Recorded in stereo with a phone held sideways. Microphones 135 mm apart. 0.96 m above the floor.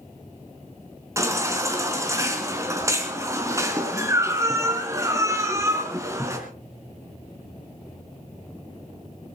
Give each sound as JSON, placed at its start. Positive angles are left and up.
{"t": 1.2, "sound": "a baby crying", "side_deg": -20, "distance_m": 3.5}